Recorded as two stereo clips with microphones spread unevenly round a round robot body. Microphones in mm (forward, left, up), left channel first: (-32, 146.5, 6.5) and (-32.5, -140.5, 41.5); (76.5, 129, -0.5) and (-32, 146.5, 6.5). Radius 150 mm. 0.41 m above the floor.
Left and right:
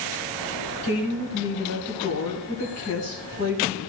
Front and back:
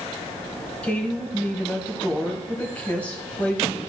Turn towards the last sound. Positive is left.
turn(degrees=65)